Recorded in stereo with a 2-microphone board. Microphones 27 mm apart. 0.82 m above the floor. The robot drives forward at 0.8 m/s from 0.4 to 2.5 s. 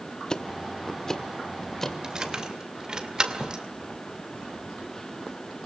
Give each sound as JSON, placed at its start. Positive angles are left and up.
{"t": 0.3, "sound": "ticking", "side_deg": 25, "distance_m": 0.9}
{"t": 2.0, "sound": "keys jangling", "side_deg": -25, "distance_m": 2.5}